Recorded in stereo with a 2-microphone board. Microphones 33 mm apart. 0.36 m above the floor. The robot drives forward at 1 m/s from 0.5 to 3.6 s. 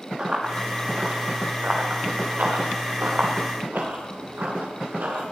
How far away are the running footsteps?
About 5 m.